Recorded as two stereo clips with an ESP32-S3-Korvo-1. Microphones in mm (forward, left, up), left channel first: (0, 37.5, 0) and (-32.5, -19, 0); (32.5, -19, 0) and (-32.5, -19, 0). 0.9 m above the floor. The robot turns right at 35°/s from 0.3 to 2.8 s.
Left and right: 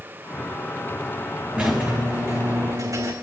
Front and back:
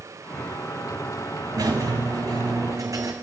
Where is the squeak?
170° left, 3.5 m; by 3.1 s 145° right, 3.5 m.